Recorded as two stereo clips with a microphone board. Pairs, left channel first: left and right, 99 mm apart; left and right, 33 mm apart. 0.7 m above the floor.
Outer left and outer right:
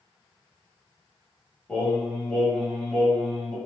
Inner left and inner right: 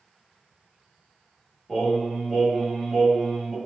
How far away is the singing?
About 1.4 m.